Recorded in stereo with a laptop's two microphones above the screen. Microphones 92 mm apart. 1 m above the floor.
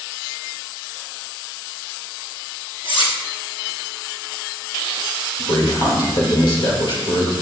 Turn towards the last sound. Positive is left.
turn(degrees=60)  # may be behind; listen again after turning